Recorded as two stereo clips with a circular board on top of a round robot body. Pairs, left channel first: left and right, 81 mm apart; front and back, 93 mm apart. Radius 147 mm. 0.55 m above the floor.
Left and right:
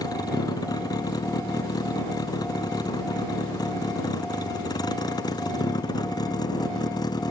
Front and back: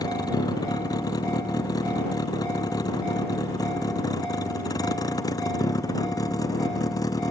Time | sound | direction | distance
0.0 | a vehicle | 50° left | ?